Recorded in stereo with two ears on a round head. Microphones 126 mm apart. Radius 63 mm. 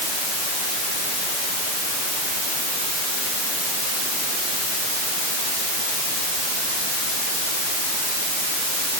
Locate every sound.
Only background noise.